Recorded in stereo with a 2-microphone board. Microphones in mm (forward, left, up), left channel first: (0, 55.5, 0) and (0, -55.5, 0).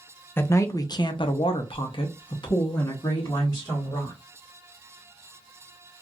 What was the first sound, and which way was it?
A man speaking, 20° left (ahead or behind).